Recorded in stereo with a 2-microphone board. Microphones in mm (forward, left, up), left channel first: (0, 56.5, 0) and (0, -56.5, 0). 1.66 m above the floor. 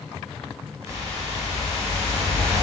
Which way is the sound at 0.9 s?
25° right (ahead or behind).